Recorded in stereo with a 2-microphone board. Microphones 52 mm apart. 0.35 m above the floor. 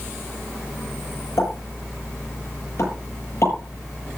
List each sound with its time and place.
1.4 s a pop: 60° left (ahead or behind), 8.5 m